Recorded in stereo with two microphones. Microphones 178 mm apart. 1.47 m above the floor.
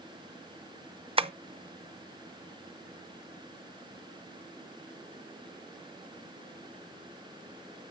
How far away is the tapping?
About 0.6 m.